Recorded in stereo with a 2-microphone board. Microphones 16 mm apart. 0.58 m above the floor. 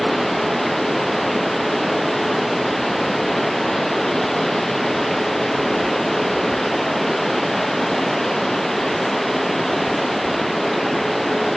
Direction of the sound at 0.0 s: 5° left (ahead or behind).